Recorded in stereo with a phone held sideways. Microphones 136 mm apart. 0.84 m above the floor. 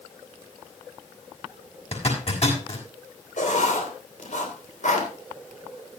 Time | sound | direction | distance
1.9 | a zipper | 50° left (ahead or behind) | 5.5 m
3.4 | writing | 65° left (ahead or behind) | 3 m